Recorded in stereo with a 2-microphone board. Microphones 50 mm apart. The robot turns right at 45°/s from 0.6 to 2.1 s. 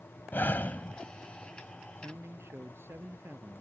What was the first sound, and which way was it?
Breathing, 40° left (ahead or behind).